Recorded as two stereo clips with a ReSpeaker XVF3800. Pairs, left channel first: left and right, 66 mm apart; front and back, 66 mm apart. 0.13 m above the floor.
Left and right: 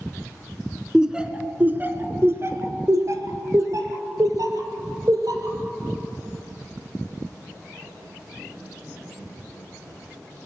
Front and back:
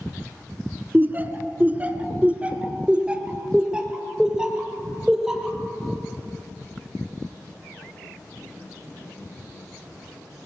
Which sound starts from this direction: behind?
Laughter, at 0.9 s.